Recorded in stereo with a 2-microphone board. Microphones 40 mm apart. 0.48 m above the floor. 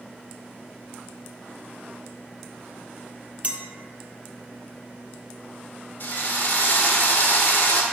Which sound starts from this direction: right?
A clink, at 3.4 s.